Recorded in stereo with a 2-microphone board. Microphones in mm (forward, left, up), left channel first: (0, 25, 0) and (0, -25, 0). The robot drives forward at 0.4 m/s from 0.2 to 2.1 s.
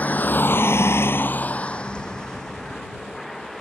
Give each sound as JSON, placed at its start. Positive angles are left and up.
{"t": 0.0, "sound": "a vehicle", "side_deg": 35}